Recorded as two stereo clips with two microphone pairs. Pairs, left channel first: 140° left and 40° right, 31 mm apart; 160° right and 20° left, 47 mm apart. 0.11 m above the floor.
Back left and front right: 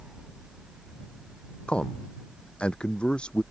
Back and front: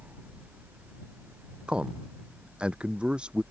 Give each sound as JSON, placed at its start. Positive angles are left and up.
{"t": 1.7, "sound": "a man speaking", "azimuth_deg": 85}